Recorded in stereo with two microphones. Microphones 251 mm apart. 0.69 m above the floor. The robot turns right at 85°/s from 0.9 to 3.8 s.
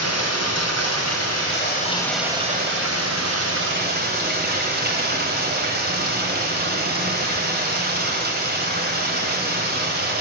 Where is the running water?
75° left, 2.5 m; by 10.2 s 40° right, 2.5 m.